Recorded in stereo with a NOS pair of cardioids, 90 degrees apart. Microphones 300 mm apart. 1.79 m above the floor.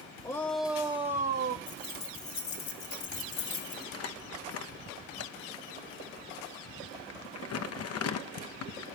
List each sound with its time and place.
0.2 s a shout: 15° left, 0.8 m; by 1.6 s 40° right, 0.9 m
1.7 s keys jangling: 70° left, 2 m
3.9 s crumpling: 55° left, 1.0 m